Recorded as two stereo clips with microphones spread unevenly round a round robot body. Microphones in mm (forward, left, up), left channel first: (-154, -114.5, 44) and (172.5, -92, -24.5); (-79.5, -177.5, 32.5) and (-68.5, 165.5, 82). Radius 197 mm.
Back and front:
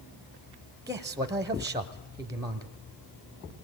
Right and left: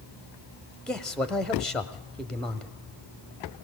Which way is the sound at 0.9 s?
25° right.